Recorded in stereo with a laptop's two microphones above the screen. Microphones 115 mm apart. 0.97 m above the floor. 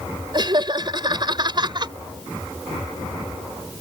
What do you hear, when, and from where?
0.3 s laughter: 40° right (ahead or behind)